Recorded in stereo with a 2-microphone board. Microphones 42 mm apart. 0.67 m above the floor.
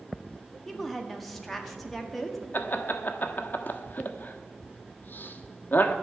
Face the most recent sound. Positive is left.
turn(degrees=45)  # may be behind; listen again after turning